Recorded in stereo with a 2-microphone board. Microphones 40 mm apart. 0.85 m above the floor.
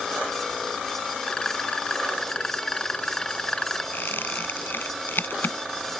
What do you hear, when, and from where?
1.2 s a rattle: 15° left (ahead or behind)
3.9 s a squeak: 55° left (ahead or behind)